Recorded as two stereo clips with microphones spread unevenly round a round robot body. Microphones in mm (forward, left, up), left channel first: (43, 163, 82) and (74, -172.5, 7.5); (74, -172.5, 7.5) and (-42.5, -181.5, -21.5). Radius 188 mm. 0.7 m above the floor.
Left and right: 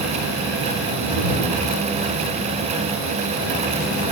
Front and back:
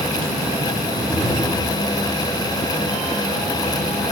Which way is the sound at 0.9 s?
25° left.